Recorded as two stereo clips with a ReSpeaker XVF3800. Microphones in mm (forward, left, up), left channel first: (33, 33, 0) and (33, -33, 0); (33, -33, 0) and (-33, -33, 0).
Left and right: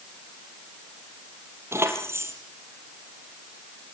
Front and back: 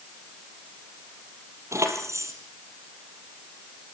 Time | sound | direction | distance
1.7 | keys jangling | 140° right | 4 m